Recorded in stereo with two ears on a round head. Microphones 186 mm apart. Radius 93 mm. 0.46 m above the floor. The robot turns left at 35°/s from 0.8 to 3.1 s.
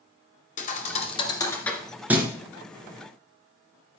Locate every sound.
0.6 s a thud: 40° left (ahead or behind), 1.9 m; by 2.3 s 15° right (ahead or behind), 1.9 m